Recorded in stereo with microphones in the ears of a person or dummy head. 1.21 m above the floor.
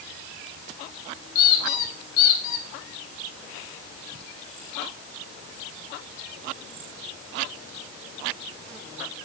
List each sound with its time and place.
1.4 s a squeak: 60° left (ahead or behind), 4 m